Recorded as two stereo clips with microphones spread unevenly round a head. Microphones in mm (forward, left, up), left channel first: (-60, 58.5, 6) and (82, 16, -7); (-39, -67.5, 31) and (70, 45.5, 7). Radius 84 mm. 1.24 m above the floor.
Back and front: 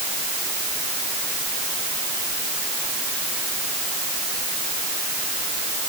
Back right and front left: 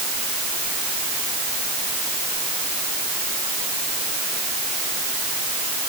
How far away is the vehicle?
No vehicle in this recording.